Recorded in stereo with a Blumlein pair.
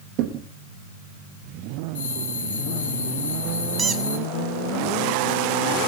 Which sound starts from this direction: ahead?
A squeak, at 3.8 s.